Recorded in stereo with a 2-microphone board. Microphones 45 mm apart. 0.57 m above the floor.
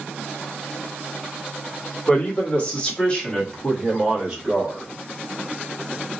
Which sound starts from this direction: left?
A man speaking, at 2.1 s.